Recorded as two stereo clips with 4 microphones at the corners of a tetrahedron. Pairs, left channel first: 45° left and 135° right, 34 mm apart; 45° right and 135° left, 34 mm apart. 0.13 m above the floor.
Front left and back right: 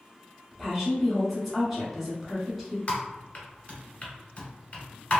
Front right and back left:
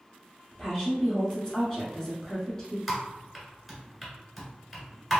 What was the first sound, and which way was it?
A woman speaking, 60° right.